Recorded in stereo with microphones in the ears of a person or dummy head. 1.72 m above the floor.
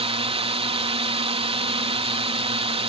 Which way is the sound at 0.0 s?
35° right (ahead or behind).